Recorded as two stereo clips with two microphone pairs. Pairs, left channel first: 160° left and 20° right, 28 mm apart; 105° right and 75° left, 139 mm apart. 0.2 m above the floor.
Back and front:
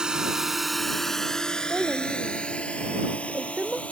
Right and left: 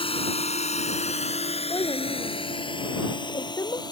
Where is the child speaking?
45° right.